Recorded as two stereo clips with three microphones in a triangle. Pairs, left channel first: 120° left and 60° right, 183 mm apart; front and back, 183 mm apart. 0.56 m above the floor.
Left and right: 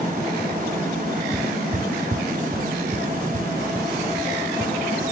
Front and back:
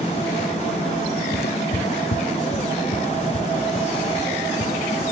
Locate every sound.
1.3 s footsteps: 5° left; by 5.0 s 10° right